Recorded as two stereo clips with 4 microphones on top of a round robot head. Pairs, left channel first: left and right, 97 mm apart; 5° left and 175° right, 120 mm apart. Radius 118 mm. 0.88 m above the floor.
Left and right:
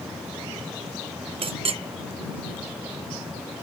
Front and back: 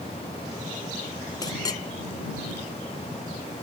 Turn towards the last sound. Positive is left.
turn(degrees=-60)